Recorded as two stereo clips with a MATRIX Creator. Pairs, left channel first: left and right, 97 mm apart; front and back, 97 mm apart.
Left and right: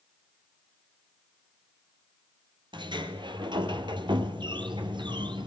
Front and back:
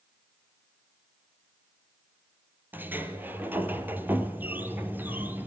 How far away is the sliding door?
About 2 m.